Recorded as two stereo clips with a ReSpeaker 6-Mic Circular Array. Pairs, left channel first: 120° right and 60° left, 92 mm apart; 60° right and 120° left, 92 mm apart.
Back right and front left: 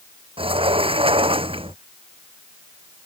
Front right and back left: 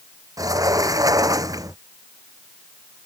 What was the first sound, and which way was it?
A sliding door, 70° left.